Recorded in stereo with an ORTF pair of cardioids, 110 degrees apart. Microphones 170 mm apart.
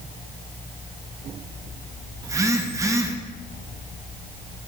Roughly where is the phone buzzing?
Ahead.